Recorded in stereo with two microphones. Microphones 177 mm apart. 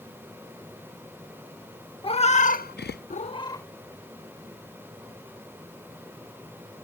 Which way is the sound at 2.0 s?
30° left (ahead or behind).